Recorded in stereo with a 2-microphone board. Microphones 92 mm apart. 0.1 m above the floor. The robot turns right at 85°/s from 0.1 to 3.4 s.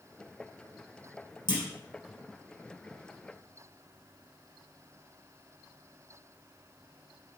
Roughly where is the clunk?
Left.